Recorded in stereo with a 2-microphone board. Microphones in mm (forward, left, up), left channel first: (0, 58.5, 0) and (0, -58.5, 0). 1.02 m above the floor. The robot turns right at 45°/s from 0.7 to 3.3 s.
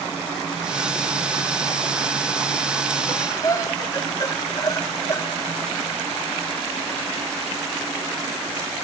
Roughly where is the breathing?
Left.